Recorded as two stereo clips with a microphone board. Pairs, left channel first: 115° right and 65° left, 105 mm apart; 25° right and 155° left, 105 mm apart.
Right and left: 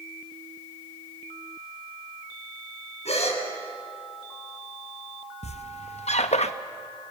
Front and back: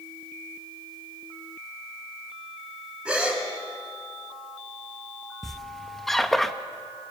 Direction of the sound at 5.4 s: 110° right.